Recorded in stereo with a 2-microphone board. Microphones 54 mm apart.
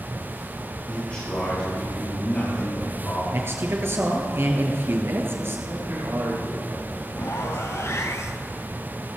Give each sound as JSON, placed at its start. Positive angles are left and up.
{"t": 0.9, "sound": "a man speaking", "side_deg": 25, "distance_m": 6.5}
{"t": 3.3, "sound": "a man speaking", "side_deg": -50, "distance_m": 1.9}
{"t": 5.7, "sound": "a man speaking", "side_deg": -60, "distance_m": 6.0}
{"t": 7.2, "sound": "a zipper", "side_deg": 60, "distance_m": 1.1}